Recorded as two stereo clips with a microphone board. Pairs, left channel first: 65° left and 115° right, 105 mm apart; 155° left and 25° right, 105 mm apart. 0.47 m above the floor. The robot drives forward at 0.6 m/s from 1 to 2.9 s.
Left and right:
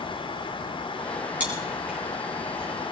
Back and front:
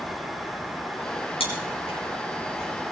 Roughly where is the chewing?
Behind.